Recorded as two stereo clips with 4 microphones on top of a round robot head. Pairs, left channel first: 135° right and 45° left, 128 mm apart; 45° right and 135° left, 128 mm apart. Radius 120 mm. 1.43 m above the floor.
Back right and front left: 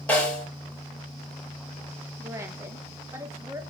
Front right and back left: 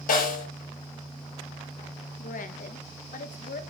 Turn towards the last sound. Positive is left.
turn(degrees=-25)